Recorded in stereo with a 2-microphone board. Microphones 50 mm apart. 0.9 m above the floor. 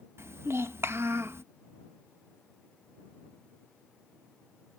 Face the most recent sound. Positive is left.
turn(degrees=-55)  # may be behind; listen again after turning